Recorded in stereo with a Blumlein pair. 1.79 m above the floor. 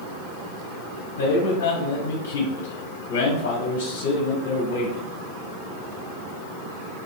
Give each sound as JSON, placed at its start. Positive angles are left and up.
{"t": 1.2, "sound": "a man speaking", "azimuth_deg": 55, "distance_m": 0.7}